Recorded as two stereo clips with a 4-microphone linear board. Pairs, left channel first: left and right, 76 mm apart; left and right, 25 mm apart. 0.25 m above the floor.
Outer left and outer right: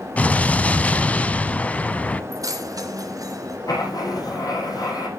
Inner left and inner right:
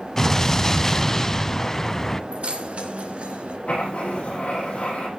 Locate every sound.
0.2 s an explosion: 20° left (ahead or behind), 0.6 m
2.3 s keys jangling: 55° right (ahead or behind), 2 m
3.7 s writing: 55° left (ahead or behind), 8 m